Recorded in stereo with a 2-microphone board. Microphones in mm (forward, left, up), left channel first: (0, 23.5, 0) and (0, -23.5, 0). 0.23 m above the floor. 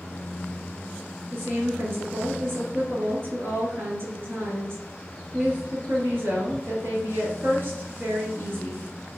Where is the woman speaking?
55° right (ahead or behind), 3.5 m.